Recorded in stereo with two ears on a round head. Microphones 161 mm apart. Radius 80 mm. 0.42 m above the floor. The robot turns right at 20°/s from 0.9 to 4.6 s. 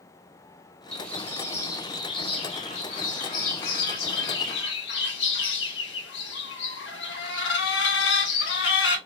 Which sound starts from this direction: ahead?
A bird, at 0.9 s.